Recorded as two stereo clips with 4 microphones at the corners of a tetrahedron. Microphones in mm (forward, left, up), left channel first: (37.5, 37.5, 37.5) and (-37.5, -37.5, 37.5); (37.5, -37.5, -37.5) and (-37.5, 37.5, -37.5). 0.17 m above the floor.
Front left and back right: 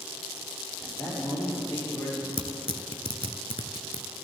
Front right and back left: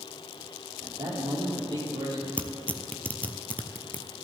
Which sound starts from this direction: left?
A man speaking, at 0.8 s.